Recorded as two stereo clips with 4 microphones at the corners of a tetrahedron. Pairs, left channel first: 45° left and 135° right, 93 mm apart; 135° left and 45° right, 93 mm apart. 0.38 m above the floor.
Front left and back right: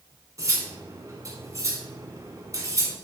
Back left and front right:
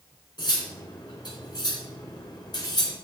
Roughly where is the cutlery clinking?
Behind.